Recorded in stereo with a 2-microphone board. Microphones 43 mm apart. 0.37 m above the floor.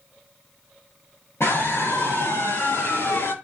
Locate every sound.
1.4 s a scream: 65° left (ahead or behind), 7 m; by 3.3 s 55° left (ahead or behind), 6 m